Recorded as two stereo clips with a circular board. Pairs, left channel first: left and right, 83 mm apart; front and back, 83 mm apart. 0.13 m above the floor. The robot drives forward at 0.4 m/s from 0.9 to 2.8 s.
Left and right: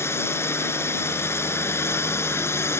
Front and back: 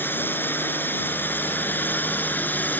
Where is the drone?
50° left; by 2.8 s 55° left.